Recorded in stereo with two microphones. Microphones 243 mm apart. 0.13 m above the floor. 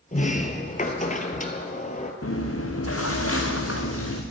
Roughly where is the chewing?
Left.